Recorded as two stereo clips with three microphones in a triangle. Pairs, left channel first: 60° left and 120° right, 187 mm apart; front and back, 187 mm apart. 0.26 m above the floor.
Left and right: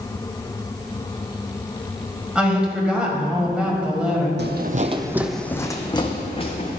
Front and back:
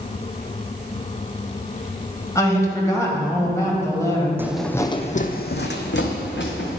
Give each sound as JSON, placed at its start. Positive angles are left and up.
{"t": 2.4, "sound": "a woman speaking", "azimuth_deg": -45, "distance_m": 1.5}
{"t": 4.4, "sound": "footsteps", "azimuth_deg": -105, "distance_m": 0.6}